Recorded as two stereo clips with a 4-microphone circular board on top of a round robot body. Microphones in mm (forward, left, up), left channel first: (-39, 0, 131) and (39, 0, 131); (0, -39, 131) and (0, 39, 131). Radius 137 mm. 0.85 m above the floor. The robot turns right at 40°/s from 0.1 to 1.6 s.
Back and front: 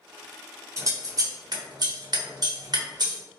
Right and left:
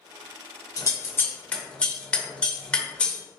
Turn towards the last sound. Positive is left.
turn(degrees=-15)